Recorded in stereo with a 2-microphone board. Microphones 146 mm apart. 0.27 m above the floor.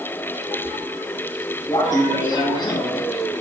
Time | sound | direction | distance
1.7 | laughter | 25° left (ahead or behind) | 2 m